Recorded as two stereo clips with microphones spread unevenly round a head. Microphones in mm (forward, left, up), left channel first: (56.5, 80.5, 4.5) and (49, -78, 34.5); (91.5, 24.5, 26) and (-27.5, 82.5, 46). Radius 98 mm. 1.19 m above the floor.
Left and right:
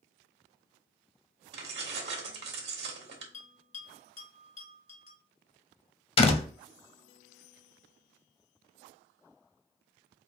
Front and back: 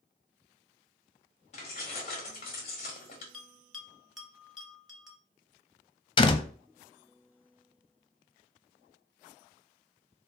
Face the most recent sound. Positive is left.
turn(degrees=30)